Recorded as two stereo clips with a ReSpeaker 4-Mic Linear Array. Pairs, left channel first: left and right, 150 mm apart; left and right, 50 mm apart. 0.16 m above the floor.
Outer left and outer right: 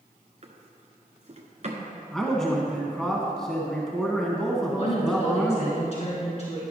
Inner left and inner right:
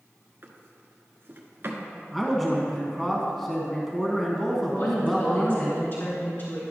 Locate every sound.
0.4 s a drawer: 50° right (ahead or behind), 1.2 m
2.1 s a man speaking: 5° left (ahead or behind), 1.4 m
4.7 s a woman speaking: 45° left (ahead or behind), 1.8 m